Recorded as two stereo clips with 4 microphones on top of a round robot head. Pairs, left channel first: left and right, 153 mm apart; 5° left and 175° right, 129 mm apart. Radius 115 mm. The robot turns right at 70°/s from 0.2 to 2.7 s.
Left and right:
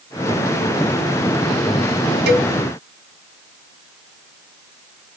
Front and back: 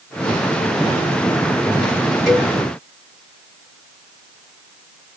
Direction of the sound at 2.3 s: 85° right.